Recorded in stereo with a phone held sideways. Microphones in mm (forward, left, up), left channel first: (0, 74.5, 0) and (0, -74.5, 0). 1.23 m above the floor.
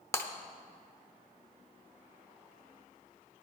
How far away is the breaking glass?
About 1.0 m.